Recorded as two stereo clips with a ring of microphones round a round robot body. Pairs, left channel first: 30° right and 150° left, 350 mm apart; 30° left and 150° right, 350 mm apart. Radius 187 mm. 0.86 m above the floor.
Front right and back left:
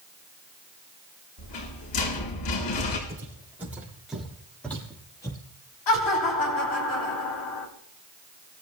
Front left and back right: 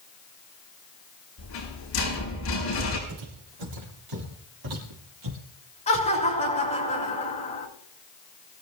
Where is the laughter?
40° right, 5.5 m.